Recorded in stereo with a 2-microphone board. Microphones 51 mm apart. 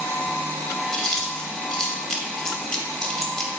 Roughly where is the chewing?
Centre.